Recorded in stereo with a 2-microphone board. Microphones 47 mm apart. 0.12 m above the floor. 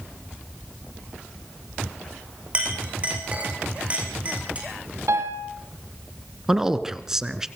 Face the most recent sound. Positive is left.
turn(degrees=-10)  # may be behind; listen again after turning